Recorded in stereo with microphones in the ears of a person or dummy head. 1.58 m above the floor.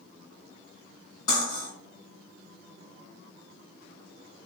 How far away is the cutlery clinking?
About 1.4 m.